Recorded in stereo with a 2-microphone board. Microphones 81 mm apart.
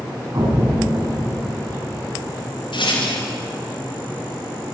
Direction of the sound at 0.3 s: 40° right (ahead or behind).